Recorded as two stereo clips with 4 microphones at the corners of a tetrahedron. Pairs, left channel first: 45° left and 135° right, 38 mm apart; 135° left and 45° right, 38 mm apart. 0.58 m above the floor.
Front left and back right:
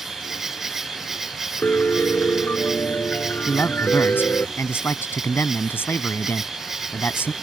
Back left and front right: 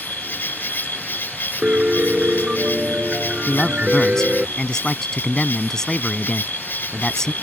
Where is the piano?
15° left.